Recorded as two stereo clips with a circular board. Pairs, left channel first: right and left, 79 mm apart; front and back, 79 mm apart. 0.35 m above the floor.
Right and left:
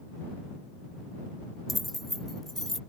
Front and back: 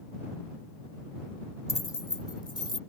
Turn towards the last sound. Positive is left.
turn(degrees=-5)